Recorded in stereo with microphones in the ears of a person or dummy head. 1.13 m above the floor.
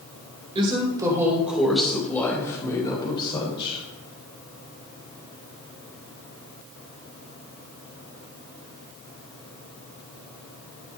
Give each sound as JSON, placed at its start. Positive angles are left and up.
{"t": 0.6, "sound": "a woman speaking", "side_deg": -30, "distance_m": 2.5}